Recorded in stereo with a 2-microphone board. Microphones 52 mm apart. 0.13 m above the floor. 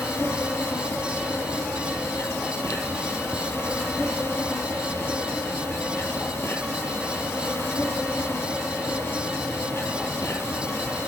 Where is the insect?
60° left (ahead or behind), 1.9 m.